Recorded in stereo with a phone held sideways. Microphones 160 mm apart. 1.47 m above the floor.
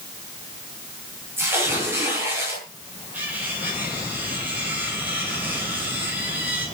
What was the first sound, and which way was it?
Tearing paper, 15° right (ahead or behind).